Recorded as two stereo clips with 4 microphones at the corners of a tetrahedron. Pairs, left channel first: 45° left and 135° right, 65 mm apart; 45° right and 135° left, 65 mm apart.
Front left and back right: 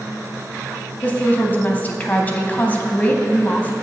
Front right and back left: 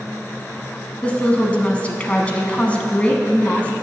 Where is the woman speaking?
5° left, 1.2 m.